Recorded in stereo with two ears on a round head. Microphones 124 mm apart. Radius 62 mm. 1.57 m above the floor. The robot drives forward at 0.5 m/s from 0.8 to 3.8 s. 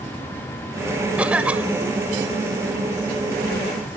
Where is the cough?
10° right (ahead or behind).